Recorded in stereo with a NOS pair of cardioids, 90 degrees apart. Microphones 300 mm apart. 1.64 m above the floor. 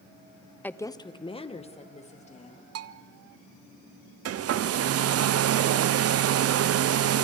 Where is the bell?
55° right, 0.7 m.